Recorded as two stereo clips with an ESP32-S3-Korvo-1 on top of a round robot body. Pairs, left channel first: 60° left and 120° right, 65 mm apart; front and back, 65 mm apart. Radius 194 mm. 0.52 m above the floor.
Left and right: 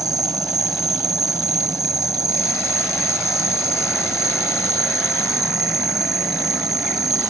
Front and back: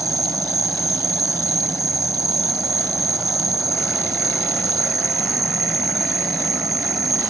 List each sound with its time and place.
0.0 s an insect: 145° right